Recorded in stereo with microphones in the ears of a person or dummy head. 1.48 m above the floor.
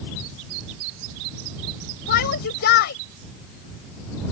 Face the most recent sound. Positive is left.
turn(degrees=65)  # may be behind; listen again after turning